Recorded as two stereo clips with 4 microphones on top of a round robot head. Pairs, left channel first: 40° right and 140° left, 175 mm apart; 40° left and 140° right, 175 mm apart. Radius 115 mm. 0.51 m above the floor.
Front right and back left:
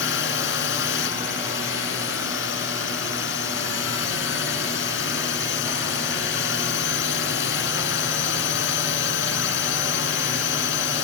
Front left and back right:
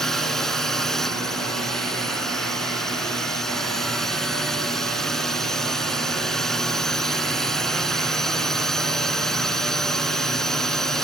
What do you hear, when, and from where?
0.0 s a drone: 45° right